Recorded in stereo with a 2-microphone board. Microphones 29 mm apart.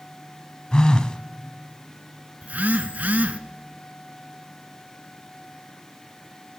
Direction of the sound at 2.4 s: 75° right (ahead or behind).